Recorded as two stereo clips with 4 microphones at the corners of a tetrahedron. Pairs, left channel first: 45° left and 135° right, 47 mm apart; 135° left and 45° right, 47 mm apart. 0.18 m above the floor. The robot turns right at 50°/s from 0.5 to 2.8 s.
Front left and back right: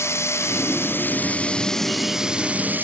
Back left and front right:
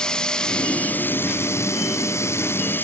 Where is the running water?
65° left; by 2.8 s straight behind.